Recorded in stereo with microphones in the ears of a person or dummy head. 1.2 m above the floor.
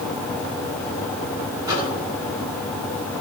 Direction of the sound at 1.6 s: 15° right (ahead or behind).